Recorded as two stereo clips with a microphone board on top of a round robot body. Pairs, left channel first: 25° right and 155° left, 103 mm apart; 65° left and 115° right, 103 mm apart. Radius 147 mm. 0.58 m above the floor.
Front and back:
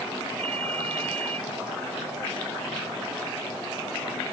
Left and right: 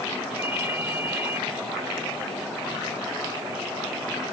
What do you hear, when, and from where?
0.4 s a ringtone: straight behind